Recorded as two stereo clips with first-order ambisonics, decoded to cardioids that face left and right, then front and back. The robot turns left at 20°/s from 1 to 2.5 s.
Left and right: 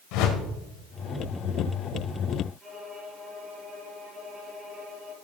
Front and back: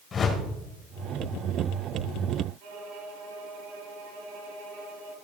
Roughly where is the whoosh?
Left.